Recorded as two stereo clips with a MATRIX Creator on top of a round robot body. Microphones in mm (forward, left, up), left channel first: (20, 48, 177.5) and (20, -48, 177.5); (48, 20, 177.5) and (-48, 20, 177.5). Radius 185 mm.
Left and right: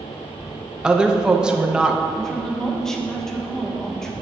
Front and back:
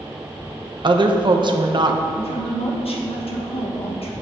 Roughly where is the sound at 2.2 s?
Ahead.